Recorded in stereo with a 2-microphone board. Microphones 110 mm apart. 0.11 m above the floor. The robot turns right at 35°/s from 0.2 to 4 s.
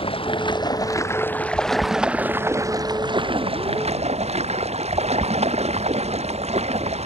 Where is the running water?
125° left; by 7.1 s 105° right.